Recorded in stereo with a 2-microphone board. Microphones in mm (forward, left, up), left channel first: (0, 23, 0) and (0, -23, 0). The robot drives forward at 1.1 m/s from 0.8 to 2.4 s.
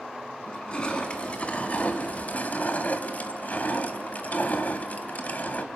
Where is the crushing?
20° left (ahead or behind), 2.5 m; by 5.7 s 35° left (ahead or behind), 1.5 m.